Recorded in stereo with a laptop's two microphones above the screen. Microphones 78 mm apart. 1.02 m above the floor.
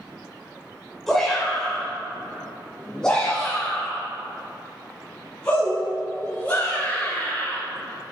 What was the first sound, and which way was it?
A shout, 5° left (ahead or behind).